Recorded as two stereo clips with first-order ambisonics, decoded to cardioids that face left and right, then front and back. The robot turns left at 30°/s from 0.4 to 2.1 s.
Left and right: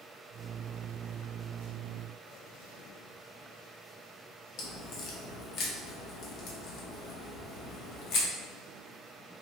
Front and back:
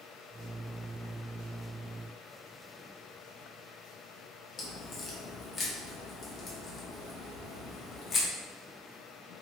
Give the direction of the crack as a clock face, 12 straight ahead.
10 o'clock.